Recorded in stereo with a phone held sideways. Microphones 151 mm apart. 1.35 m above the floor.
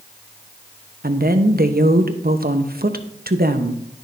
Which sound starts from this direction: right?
A woman speaking, at 1.0 s.